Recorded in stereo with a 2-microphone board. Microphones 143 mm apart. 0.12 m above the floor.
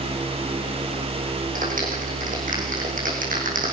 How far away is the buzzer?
I don't hear a buzzer.